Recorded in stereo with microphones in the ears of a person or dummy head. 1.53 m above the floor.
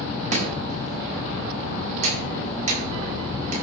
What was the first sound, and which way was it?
Chopping, 40° right (ahead or behind).